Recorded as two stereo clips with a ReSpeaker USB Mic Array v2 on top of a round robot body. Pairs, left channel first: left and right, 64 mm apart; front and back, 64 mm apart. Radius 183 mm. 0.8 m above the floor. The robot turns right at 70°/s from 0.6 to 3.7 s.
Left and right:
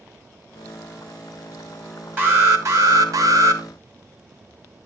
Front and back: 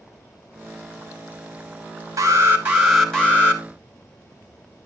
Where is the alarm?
150° right, 2.5 m; by 3.6 s 45° right, 2.5 m.